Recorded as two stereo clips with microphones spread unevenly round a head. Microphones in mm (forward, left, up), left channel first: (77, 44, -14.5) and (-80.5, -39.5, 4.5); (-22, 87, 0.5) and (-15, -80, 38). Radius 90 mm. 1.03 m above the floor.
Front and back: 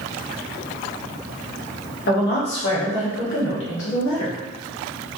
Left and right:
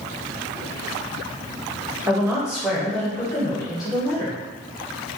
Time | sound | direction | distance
2.1 | a woman speaking | 5° right | 1.5 m